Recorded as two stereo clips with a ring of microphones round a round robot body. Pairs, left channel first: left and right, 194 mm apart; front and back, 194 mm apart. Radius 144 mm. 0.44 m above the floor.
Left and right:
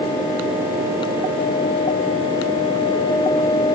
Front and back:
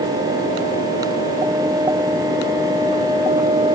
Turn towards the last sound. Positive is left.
No sound to turn to.